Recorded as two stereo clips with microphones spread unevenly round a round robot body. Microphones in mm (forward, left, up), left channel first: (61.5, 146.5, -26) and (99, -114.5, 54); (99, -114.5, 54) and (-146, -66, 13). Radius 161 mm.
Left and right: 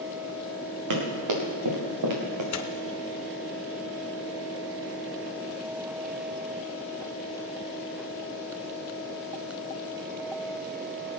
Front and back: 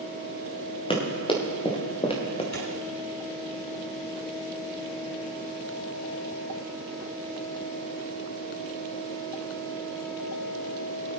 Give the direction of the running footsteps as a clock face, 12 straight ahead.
3 o'clock.